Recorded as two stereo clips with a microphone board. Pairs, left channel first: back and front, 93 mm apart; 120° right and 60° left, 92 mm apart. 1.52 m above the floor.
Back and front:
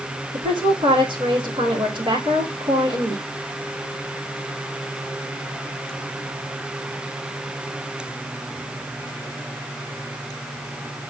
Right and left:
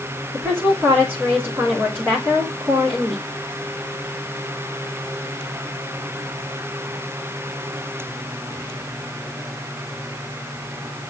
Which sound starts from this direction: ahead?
A woman speaking, at 0.3 s.